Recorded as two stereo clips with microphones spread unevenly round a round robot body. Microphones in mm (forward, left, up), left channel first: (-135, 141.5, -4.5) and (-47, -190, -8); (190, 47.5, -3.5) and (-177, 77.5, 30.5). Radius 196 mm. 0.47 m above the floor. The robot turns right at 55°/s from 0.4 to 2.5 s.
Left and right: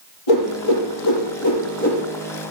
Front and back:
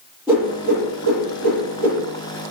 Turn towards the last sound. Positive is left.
turn(degrees=-155)